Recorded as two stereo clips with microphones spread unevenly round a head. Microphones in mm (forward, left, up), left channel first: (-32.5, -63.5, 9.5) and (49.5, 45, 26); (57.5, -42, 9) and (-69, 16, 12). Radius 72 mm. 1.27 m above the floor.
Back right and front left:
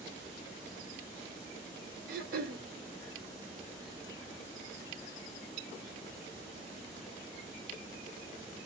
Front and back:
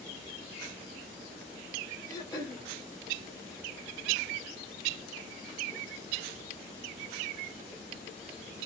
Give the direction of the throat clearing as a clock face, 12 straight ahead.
11 o'clock.